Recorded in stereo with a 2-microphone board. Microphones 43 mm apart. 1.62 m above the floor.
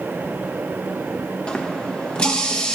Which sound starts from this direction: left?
A running tap, at 1.5 s.